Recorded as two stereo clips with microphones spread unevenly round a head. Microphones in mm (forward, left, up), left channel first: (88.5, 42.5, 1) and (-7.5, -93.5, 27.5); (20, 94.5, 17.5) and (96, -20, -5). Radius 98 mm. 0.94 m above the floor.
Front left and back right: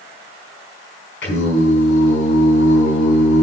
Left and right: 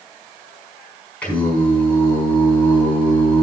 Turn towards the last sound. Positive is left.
turn(degrees=45)